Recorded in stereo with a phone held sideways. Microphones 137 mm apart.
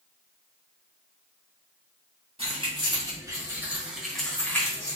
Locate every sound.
2.4 s keys jangling: 45° right (ahead or behind), 1.4 m; by 5.0 s 25° left (ahead or behind), 1.2 m